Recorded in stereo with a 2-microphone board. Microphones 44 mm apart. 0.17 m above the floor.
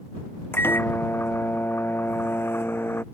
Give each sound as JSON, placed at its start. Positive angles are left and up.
{"t": 0.5, "sound": "a microwave", "side_deg": 60}